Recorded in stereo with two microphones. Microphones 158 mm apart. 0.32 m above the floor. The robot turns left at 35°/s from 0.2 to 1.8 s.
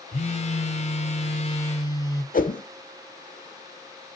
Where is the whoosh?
60° left (ahead or behind), 0.8 m.